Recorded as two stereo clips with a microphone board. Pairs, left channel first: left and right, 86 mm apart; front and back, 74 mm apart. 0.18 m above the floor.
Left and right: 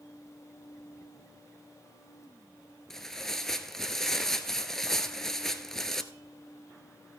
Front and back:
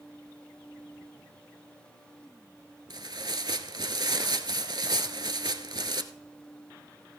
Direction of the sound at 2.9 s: 175° left.